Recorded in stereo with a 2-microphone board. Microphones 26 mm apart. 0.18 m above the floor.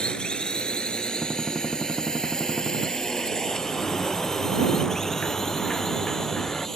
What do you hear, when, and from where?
0.0 s a drone: 40° left (ahead or behind); by 6.8 s 20° left (ahead or behind)
1.2 s a gunshot: 5° left (ahead or behind)
3.5 s a sliding door: 30° left (ahead or behind)